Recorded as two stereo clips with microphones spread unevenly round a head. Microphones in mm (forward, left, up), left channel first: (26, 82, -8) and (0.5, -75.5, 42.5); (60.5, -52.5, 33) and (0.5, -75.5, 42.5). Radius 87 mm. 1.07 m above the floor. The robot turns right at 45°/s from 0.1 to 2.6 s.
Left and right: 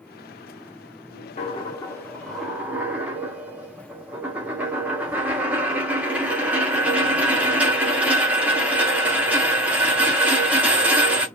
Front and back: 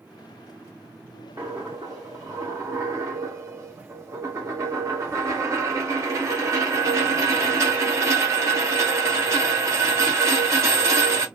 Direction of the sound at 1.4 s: 140° left.